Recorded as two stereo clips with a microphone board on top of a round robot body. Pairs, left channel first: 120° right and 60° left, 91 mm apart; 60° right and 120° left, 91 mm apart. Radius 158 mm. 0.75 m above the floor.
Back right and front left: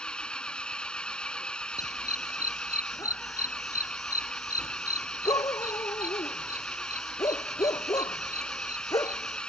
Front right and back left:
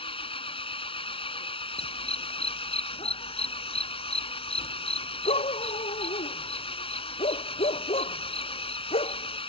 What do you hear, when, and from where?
0.0 s an engine running: 40° right
1.8 s a dog barking: 70° right